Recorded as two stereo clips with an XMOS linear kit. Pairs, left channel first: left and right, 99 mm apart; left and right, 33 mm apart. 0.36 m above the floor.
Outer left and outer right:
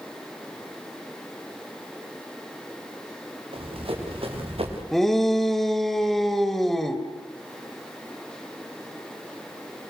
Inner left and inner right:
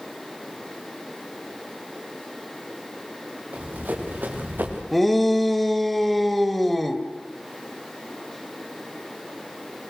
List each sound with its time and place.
3.5 s running footsteps: 65° right (ahead or behind), 6 m; by 4.8 s 70° right (ahead or behind), 6.5 m
4.9 s a shout: centre (ahead or behind), 1.6 m